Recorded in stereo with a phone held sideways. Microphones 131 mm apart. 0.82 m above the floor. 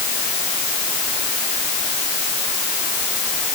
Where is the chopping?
I don't hear chopping.